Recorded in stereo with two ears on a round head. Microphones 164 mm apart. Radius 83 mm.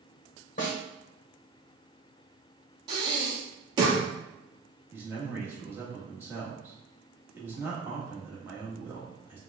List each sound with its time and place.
0.6 s a snare drum: 45° left (ahead or behind), 1.3 m
2.9 s breathing: 25° right (ahead or behind), 1.1 m
4.9 s a man speaking: 10° right (ahead or behind), 1.5 m